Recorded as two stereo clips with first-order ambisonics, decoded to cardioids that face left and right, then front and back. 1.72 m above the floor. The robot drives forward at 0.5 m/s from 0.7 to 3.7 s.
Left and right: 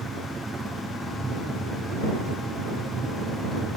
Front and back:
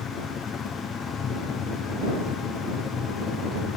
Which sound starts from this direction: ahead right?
A helicopter, at 0.0 s.